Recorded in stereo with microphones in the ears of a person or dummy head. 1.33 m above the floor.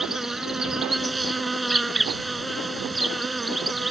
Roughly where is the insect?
Centre.